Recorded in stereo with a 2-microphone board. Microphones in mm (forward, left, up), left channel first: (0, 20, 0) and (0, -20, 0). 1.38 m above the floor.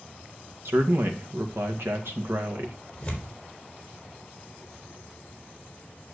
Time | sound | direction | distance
0.7 | a man speaking | 80° right | 2 m
3.0 | tearing paper | 15° left (ahead or behind) | 4 m